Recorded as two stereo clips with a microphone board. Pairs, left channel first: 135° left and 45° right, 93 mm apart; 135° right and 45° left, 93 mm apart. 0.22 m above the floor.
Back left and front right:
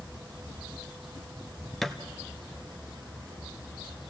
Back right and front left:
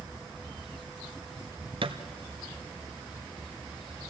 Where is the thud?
50° left, 1.2 m.